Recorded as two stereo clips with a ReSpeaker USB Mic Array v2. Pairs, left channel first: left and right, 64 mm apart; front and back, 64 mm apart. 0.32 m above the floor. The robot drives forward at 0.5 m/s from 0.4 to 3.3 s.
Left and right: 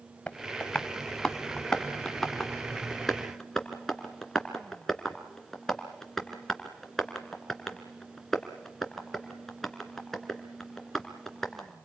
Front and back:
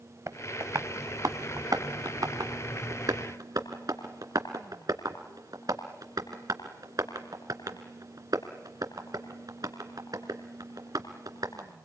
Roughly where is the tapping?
Behind.